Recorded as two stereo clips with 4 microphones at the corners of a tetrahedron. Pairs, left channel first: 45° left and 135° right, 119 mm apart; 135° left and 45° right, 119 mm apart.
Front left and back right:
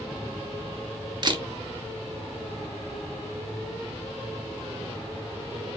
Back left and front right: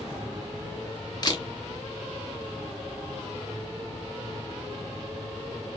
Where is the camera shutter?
Straight behind, 0.6 m.